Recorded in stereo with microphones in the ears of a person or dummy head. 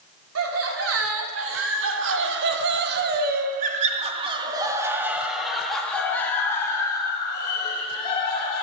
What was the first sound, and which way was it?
Laughter, 90° right.